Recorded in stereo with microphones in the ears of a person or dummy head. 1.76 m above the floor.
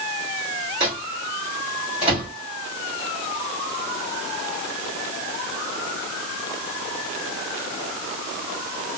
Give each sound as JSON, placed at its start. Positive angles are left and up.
{"t": 0.8, "sound": "a microwave", "side_deg": -55, "distance_m": 2.0}